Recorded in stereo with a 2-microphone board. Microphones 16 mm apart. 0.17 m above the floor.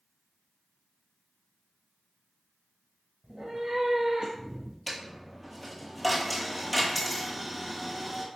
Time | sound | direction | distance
3.2 | a cat meowing | 60° right (ahead or behind) | 1.1 m
4.9 | a dropped coin | 5° right (ahead or behind) | 0.8 m